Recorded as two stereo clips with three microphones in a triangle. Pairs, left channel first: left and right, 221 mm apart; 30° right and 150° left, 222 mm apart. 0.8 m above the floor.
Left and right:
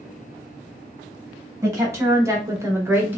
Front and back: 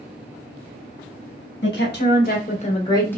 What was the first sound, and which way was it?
A woman speaking, 15° right.